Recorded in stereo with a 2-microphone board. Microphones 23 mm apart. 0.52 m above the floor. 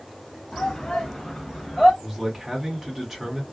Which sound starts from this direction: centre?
A man speaking, at 2.0 s.